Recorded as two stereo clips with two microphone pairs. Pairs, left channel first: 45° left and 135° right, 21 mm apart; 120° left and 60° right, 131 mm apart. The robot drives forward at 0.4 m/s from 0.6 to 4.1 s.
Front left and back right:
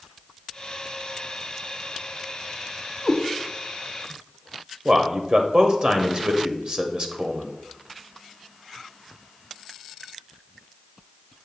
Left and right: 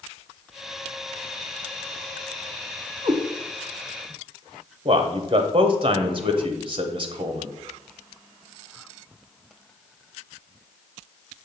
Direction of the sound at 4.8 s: 95° right.